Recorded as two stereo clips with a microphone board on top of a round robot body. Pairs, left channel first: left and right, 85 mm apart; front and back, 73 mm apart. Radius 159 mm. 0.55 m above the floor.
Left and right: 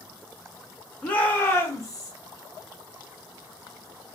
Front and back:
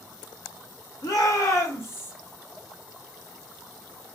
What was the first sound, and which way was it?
A shout, 15° left.